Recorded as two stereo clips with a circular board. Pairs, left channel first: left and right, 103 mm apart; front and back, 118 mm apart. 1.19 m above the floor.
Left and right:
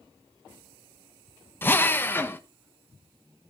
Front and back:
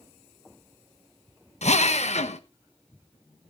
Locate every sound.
1.6 s a drill: 20° left, 1.2 m